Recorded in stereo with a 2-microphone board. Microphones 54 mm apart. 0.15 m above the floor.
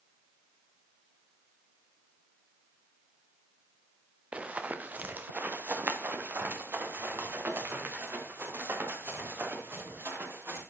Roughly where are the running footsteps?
Right.